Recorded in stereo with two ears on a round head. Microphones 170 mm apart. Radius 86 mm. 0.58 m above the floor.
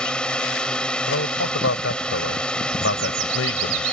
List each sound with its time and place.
0.0 s a drone: 5° left (ahead or behind)
1.1 s a man speaking: 75° left (ahead or behind)